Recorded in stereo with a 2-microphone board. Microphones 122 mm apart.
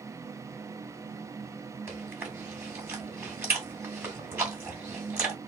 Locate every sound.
1.9 s chewing: 15° right (ahead or behind), 2.5 m